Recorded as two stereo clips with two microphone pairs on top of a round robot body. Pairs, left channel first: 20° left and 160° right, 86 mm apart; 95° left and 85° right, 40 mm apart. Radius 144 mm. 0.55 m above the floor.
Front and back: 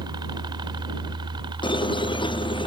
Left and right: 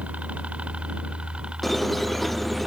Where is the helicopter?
135° right; by 2.7 s 155° right.